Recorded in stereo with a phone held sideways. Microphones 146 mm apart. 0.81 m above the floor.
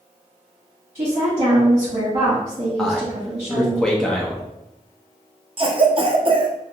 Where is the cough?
40° right (ahead or behind), 0.5 m.